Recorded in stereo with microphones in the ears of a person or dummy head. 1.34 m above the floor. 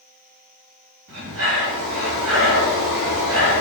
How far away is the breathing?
About 3 m.